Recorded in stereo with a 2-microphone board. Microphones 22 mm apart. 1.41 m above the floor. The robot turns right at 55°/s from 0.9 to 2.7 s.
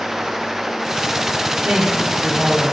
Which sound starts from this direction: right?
A woman speaking, at 1.6 s.